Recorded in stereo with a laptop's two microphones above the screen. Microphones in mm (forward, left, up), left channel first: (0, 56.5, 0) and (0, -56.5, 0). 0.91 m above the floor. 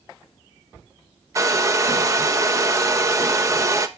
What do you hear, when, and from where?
1.4 s a hair dryer: 30° right (ahead or behind), 0.9 m